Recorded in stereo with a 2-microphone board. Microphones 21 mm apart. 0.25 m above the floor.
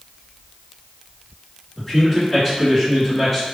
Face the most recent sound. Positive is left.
turn(degrees=10)  # may be behind; listen again after turning